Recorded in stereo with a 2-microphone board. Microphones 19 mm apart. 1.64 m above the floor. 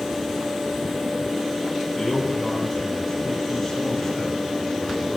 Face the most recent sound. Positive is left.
turn(degrees=10)  # may be behind; listen again after turning